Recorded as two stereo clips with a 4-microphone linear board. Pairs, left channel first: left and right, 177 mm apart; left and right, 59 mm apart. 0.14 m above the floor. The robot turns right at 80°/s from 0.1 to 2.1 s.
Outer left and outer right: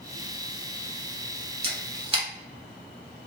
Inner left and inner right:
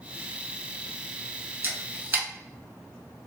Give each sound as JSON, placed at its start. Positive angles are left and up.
{"t": 1.6, "sound": "a camera shutter", "side_deg": -35, "distance_m": 0.7}